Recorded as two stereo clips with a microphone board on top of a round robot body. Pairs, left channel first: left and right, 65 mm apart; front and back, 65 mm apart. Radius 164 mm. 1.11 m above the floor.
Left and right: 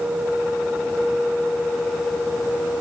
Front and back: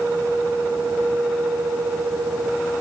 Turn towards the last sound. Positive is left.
No sound to turn to.